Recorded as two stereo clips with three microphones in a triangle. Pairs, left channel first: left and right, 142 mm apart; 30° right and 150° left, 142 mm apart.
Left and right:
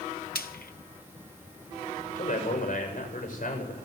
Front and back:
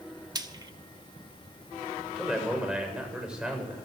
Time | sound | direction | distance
0.3 | frying | 90° left | 1.0 m
2.1 | a man speaking | 65° left | 7.5 m